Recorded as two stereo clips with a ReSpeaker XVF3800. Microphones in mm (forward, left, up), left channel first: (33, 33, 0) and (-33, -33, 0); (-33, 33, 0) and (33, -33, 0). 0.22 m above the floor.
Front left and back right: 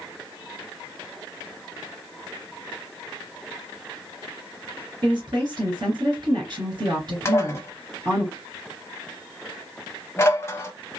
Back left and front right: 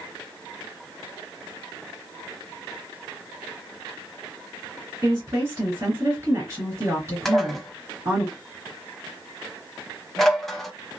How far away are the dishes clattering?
About 0.7 m.